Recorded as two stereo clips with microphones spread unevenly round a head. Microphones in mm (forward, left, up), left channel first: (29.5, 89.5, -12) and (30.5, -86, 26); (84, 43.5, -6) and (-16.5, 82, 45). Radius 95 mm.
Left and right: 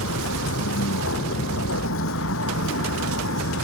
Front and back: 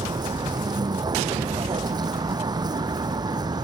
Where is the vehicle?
110° left.